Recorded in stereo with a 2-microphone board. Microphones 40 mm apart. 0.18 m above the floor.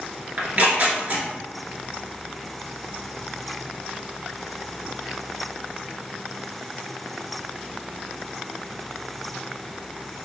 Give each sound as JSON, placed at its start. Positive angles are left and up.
{"t": 0.4, "sound": "tearing paper", "side_deg": -45, "distance_m": 1.2}